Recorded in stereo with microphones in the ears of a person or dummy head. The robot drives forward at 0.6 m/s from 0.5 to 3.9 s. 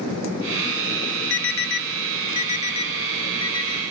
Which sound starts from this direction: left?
An alarm, at 1.3 s.